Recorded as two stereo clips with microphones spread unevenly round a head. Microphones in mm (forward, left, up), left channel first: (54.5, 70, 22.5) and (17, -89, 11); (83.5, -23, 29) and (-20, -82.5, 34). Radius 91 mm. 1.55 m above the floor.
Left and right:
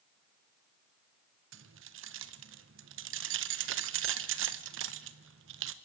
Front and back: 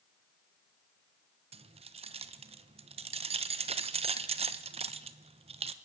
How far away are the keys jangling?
About 1.0 m.